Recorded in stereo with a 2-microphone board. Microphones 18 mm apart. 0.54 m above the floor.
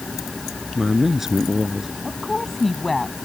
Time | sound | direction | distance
0.8 | a man speaking | 20° right (ahead or behind) | ?
2.0 | a woman speaking | 15° left (ahead or behind) | ?